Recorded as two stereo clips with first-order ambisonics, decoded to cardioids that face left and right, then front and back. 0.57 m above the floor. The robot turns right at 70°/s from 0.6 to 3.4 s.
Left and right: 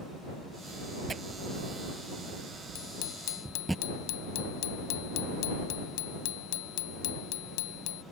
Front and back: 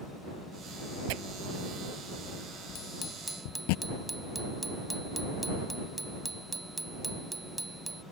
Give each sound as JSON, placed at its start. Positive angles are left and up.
{"t": 1.1, "sound": "tearing paper", "azimuth_deg": -165}
{"t": 2.8, "sound": "a bicycle bell", "azimuth_deg": 50}